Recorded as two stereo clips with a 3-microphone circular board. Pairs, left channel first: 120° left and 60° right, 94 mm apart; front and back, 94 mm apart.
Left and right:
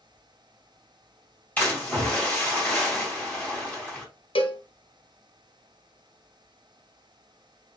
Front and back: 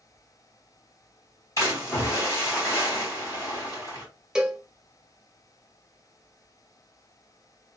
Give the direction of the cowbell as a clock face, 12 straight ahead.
9 o'clock.